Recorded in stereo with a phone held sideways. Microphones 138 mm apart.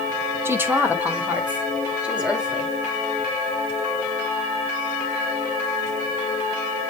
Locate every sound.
0.5 s a woman speaking: 15° right (ahead or behind), 1.4 m; by 2.7 s 5° right (ahead or behind), 4 m